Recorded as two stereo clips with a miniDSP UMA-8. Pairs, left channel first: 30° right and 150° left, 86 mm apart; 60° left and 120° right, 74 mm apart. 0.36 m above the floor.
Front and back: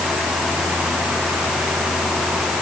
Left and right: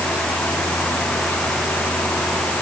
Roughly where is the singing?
I don't hear singing.